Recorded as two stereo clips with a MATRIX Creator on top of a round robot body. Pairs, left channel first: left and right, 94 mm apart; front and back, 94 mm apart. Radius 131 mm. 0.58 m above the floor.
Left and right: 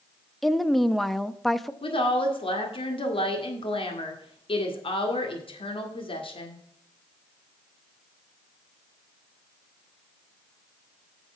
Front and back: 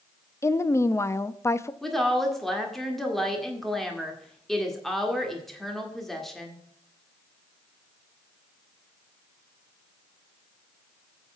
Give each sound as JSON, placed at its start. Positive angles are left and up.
{"t": 0.4, "sound": "a woman speaking", "azimuth_deg": 5, "distance_m": 0.8}
{"t": 1.8, "sound": "a woman speaking", "azimuth_deg": 85, "distance_m": 2.0}